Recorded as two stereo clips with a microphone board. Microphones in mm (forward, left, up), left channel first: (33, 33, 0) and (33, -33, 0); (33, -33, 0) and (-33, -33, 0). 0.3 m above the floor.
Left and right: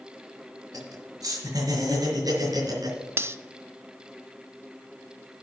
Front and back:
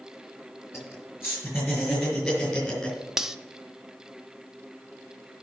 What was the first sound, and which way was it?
Laughter, 55° right.